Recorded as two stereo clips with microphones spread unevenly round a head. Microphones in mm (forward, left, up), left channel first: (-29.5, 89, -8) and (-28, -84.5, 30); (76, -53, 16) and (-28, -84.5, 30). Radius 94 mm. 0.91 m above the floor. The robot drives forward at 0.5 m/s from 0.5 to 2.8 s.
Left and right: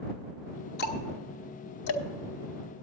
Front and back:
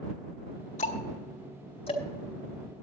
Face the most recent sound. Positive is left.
turn(degrees=110)